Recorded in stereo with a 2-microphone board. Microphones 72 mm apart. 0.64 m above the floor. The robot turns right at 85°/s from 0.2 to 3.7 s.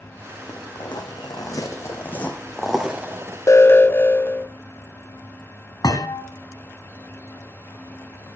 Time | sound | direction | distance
0.5 | footsteps | 65° left (ahead or behind) | 3 m
3.5 | an alarm | 45° left (ahead or behind) | 0.6 m
5.8 | a thud | 65° left (ahead or behind) | 2 m